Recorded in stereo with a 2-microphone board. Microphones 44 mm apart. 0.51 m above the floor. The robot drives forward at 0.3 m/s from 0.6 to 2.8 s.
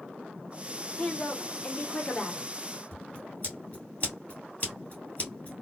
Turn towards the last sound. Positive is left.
turn(degrees=35)  # may be behind; listen again after turning